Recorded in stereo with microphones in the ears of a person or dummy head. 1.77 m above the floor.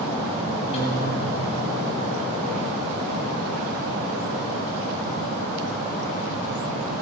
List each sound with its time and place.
0.7 s a guitar: 35° left (ahead or behind), 9 m